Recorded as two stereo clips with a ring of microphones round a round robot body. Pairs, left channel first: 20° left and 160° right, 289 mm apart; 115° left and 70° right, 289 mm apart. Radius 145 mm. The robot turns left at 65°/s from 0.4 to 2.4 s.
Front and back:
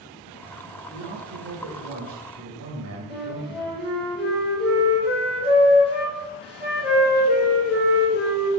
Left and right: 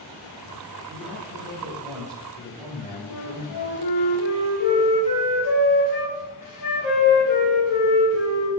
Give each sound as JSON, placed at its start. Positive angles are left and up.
{"t": 0.9, "sound": "a man speaking", "azimuth_deg": -80, "distance_m": 2.0}
{"t": 3.1, "sound": "a flute", "azimuth_deg": 95, "distance_m": 2.5}